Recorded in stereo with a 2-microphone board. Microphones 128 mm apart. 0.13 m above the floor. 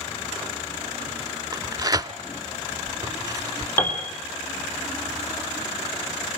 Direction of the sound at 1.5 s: 30° right (ahead or behind).